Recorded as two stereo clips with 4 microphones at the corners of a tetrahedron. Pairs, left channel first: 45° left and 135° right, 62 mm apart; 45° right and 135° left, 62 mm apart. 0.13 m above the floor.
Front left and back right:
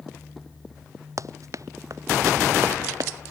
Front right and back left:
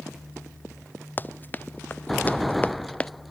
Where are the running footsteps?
105° right; by 3.1 s 115° right.